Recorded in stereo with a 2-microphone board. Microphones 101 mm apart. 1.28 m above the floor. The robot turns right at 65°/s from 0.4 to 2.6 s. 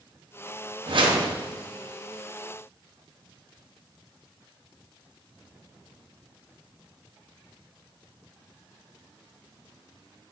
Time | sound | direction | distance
0.9 | a whoosh | 100° right | 1.0 m